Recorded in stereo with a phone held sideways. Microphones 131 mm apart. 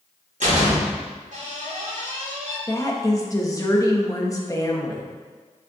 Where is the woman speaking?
30° left (ahead or behind), 1.2 m.